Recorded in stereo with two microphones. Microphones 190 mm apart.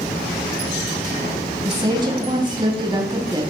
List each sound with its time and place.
1.6 s a woman speaking: 25° right (ahead or behind), 2.5 m